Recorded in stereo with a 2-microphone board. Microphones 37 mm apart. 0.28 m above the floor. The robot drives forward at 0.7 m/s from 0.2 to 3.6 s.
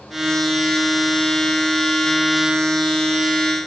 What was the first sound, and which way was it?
Only background noise.